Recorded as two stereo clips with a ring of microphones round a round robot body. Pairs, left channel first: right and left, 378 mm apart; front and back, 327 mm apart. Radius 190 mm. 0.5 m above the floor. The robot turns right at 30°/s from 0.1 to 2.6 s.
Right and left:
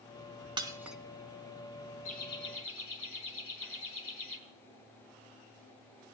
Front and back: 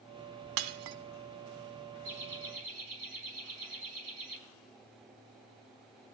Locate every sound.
0.6 s breaking glass: 165° left, 0.9 m; by 1.0 s straight behind, 0.9 m
2.0 s laughter: 160° right, 4 m; by 4.4 s 145° right, 4 m